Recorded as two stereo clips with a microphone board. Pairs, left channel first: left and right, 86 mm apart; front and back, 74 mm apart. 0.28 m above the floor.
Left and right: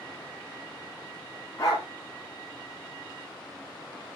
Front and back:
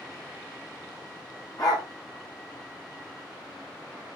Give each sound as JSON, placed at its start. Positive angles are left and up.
{"t": 1.6, "sound": "a dog barking", "azimuth_deg": 35, "distance_m": 7.5}